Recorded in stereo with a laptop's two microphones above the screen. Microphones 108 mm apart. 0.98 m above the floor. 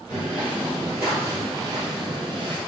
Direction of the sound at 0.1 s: 10° right (ahead or behind).